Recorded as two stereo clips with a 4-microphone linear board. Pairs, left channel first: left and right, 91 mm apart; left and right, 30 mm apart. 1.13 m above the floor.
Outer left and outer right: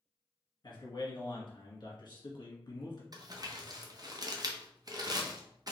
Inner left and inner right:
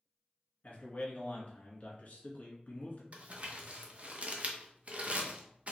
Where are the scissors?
I don't hear scissors.